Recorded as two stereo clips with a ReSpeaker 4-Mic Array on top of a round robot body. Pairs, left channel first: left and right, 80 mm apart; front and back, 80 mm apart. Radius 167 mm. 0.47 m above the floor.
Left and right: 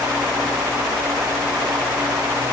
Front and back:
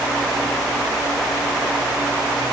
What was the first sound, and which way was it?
Only background noise.